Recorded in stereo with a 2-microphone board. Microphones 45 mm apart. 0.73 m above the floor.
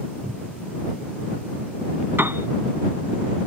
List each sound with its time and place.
0.2 s a cupboard door: 15° right (ahead or behind)
2.2 s a piano: 65° right (ahead or behind)